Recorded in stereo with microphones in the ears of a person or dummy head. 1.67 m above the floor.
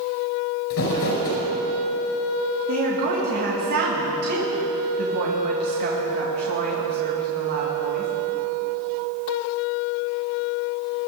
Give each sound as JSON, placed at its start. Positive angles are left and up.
{"t": 0.7, "sound": "crumpling", "side_deg": 70, "distance_m": 5.0}
{"t": 2.7, "sound": "a woman speaking", "side_deg": -45, "distance_m": 1.9}